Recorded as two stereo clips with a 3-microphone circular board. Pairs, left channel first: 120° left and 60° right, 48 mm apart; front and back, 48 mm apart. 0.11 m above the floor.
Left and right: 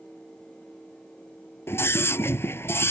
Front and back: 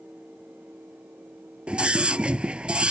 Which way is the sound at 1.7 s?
120° left.